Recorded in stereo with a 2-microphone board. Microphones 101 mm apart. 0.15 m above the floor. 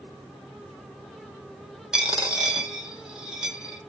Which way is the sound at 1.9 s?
5° right (ahead or behind).